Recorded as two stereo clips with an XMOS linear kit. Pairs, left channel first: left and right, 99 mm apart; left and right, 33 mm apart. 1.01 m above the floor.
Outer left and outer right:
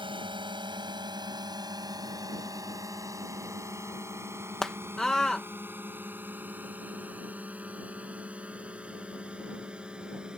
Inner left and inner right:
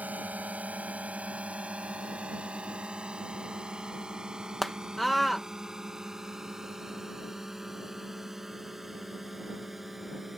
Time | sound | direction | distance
0.0 | a drone | 55° right (ahead or behind) | ?
4.6 | a scream | 5° left (ahead or behind) | ?